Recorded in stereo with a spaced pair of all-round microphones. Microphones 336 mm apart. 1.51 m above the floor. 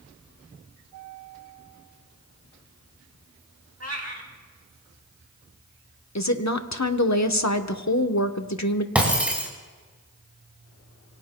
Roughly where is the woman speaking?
Left.